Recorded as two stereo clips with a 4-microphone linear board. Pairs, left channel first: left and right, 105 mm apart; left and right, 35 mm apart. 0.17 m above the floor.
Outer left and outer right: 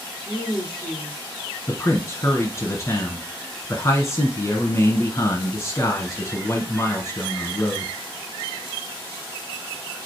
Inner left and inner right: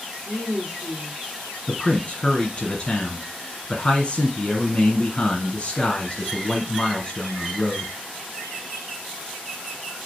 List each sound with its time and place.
0.2 s a woman speaking: 10° right (ahead or behind), 2 m
1.7 s a man speaking: 30° left (ahead or behind), 1.4 m